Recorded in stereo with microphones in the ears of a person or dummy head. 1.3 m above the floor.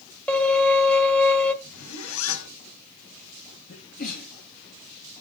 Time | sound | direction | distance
0.3 | a violin | centre (ahead or behind) | 1.9 m
1.6 | a zipper | 80° left | 2.5 m
3.7 | a sneeze | 50° left (ahead or behind) | 2.5 m